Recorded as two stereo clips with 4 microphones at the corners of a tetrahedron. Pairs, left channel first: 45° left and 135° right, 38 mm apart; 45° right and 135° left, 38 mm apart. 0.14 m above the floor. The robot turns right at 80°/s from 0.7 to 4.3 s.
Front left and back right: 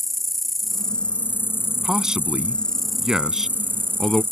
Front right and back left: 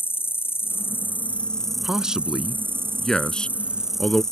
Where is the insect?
45° right; by 4.3 s 115° right.